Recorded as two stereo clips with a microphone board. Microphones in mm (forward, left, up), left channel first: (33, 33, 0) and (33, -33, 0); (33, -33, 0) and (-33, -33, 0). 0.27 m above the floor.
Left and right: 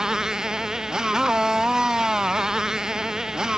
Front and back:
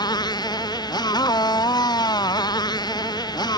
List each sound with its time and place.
0.0 s a motorcycle: 10° right